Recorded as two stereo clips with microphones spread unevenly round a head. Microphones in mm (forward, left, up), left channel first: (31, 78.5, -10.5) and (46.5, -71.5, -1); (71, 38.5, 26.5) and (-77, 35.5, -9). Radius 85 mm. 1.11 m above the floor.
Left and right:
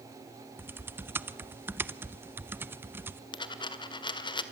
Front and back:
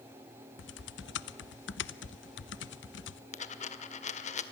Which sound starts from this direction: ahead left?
A dropped coin, at 3.3 s.